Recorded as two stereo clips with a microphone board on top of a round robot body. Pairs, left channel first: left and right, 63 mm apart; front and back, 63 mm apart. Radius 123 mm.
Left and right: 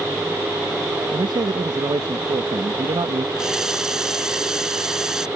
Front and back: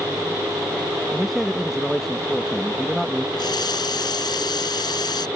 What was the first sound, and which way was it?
A man speaking, 90° right.